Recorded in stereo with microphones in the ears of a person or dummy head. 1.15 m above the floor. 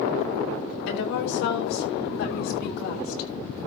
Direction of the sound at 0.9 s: 75° left (ahead or behind).